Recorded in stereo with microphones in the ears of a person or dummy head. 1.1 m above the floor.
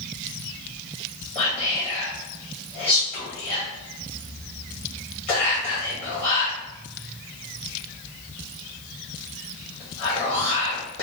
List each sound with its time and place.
1.4 s whispering: 35° left (ahead or behind), 0.9 m